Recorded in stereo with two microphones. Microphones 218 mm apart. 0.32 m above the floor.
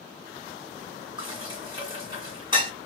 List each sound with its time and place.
1.2 s dishes clattering: 20° right (ahead or behind), 1.9 m